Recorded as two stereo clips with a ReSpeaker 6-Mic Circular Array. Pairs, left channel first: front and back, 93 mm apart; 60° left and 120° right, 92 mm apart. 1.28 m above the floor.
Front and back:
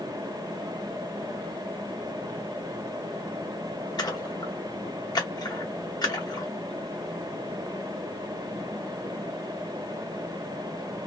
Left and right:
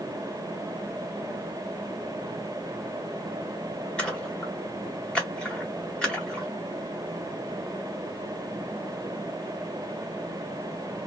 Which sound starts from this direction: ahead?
A splash, at 4.0 s.